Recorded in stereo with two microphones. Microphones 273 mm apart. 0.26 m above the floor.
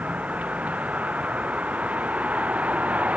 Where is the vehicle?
5° right (ahead or behind).